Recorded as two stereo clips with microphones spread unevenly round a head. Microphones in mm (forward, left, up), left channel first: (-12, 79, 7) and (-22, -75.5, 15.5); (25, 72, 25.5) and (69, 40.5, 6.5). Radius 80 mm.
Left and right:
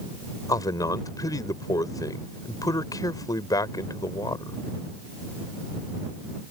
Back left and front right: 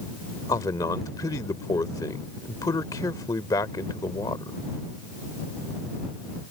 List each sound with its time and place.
0.5 s a man speaking: 155° left